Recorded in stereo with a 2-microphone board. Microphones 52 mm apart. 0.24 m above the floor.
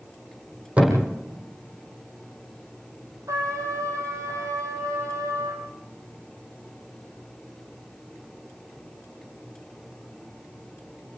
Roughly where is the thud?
Right.